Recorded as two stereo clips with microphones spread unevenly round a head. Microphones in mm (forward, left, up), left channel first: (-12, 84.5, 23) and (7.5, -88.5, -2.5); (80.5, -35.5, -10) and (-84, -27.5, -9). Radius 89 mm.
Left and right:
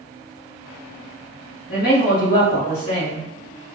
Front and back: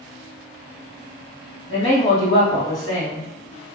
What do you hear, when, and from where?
1.7 s a woman speaking: 50° left, 1.8 m